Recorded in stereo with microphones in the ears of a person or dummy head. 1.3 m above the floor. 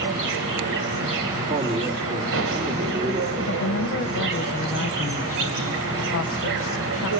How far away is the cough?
No cough in this recording.